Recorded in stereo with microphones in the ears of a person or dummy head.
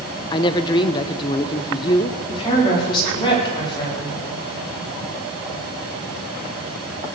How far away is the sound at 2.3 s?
About 4.5 m.